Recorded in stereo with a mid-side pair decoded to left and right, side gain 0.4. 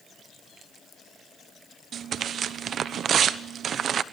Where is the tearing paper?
65° right, 1.1 m.